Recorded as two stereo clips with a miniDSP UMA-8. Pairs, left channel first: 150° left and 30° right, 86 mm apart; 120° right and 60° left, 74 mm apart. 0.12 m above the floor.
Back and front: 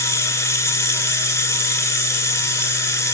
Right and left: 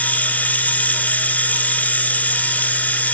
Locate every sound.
0.0 s running water: 175° right, 0.8 m